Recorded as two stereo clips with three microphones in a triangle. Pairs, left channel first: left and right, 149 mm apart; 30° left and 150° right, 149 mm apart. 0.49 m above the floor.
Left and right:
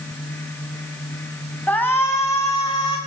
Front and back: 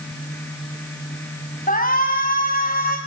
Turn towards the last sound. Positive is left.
turn(degrees=35)